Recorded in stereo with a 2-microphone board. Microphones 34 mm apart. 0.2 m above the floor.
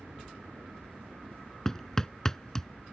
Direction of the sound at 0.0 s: 70° right (ahead or behind).